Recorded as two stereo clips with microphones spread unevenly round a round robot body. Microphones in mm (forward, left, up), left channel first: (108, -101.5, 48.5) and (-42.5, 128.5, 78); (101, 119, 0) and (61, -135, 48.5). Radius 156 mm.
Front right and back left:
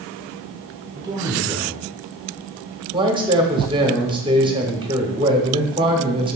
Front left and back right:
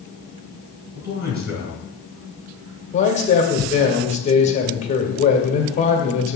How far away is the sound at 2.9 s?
About 1.5 m.